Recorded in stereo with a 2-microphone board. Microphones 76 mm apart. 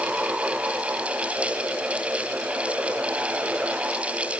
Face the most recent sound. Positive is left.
No sound to turn to.